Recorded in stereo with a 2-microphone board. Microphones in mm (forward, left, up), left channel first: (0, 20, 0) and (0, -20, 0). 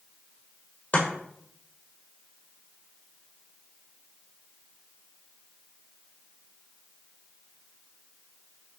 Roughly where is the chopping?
Left.